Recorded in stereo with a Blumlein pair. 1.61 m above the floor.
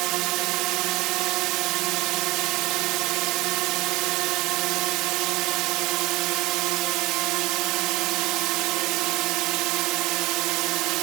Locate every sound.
0.0 s a drone: 40° right